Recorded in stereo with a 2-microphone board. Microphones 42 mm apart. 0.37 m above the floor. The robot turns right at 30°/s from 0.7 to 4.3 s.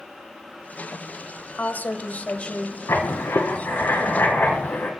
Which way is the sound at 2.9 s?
85° left.